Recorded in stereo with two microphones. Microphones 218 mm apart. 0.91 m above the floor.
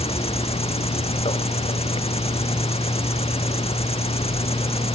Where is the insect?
30° left (ahead or behind).